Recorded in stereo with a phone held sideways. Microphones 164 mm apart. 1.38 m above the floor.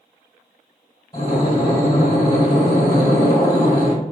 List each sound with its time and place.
1.1 s breathing: 30° left (ahead or behind), 1.8 m